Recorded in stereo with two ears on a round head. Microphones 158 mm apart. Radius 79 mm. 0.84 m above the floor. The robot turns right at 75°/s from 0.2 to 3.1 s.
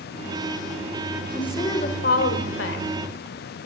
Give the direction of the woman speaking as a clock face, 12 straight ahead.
12 o'clock.